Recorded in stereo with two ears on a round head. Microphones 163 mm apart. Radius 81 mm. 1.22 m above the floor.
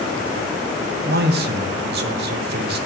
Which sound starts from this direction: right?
A man speaking, at 1.1 s.